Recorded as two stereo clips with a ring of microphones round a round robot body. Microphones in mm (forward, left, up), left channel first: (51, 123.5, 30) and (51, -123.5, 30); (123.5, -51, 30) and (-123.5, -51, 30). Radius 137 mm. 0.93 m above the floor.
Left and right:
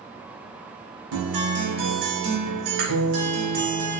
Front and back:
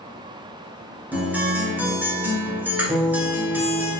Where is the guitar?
95° right, 1.3 m.